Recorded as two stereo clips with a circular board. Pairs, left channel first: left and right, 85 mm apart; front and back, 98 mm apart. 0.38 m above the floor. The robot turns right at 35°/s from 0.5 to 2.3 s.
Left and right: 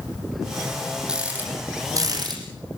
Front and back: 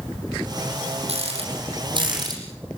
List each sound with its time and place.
1.1 s a rattle: 170° right, 7 m; by 2.4 s 130° right, 7 m